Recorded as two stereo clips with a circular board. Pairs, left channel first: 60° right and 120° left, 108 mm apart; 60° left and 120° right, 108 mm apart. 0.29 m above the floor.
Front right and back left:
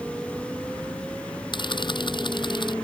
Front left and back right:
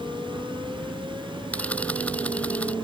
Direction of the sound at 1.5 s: 15° right.